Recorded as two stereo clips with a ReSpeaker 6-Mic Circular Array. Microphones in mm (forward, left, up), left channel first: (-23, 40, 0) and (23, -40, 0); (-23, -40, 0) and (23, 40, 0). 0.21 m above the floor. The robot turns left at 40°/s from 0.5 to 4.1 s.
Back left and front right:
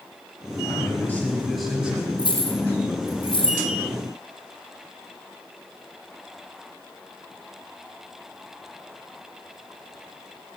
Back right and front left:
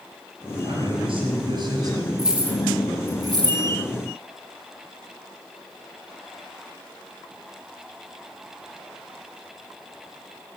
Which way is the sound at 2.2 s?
145° left.